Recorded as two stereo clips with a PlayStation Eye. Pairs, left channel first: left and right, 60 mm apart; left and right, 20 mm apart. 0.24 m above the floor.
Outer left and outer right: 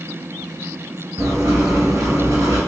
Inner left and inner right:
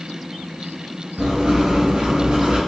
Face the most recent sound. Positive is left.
turn(degrees=-65)  # may be behind; listen again after turning